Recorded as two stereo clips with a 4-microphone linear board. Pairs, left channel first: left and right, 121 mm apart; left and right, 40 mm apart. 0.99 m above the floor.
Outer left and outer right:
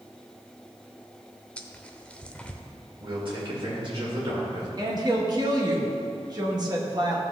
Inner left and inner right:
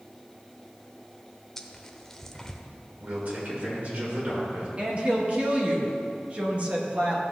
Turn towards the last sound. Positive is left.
turn(degrees=-35)  # may be behind; listen again after turning